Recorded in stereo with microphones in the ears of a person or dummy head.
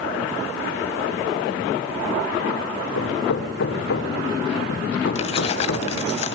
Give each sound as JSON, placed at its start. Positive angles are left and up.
{"t": 3.0, "sound": "hammering", "side_deg": 80, "distance_m": 3.5}
{"t": 5.2, "sound": "keys jangling", "side_deg": 35, "distance_m": 0.5}